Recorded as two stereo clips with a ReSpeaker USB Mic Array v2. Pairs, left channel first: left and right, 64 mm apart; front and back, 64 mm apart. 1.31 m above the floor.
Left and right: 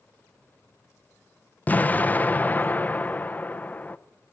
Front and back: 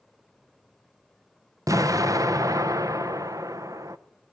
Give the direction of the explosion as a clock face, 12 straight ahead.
7 o'clock.